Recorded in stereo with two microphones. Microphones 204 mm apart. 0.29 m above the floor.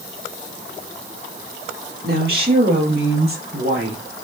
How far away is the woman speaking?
About 5 m.